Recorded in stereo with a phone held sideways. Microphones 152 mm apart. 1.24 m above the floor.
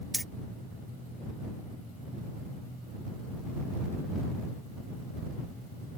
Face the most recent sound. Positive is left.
turn(degrees=0)  # may be behind; listen again after turning